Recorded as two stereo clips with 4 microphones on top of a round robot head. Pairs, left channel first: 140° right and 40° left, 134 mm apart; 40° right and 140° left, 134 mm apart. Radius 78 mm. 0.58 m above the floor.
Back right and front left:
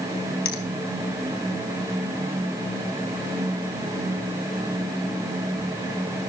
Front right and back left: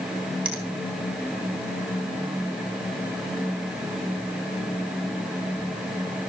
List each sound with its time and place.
0.5 s a finger snap: 140° right, 3 m